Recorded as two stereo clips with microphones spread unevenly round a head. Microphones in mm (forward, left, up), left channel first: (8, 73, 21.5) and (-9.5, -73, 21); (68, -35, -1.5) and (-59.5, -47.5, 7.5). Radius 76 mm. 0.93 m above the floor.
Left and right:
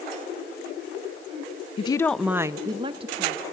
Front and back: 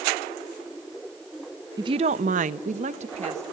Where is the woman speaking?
125° left, 0.5 m; by 3.4 s 140° right, 1.5 m.